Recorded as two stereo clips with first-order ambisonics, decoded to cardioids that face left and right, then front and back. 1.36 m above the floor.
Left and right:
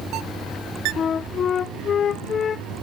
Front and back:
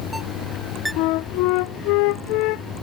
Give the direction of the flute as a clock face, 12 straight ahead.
11 o'clock.